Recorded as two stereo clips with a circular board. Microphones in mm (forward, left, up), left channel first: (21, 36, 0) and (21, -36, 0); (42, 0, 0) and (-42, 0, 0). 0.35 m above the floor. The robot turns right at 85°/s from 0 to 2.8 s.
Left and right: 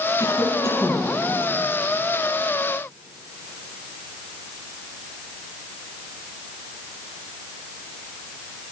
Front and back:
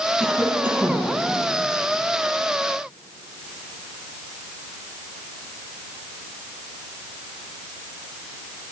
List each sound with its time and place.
0.2 s a cough: 75° left, 3 m; by 1.1 s 150° left, 3 m